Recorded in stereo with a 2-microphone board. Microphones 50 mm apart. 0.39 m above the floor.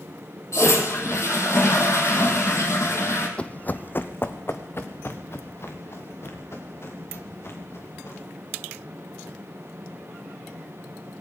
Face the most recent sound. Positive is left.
turn(degrees=55)  # may be behind; listen again after turning